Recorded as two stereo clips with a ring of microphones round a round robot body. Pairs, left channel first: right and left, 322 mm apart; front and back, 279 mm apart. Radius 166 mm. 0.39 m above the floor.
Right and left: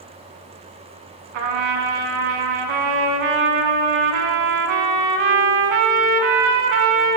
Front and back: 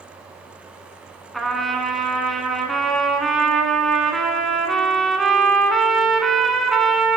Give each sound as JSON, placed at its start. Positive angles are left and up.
{"t": 1.3, "sound": "a trumpet", "azimuth_deg": 90, "distance_m": 0.8}